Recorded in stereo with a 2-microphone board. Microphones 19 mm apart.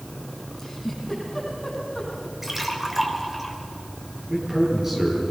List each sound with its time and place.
0.6 s a giggle: 10° left (ahead or behind), 8 m
2.4 s a splash: 20° right (ahead or behind), 3 m
4.3 s a man speaking: 30° right (ahead or behind), 8.5 m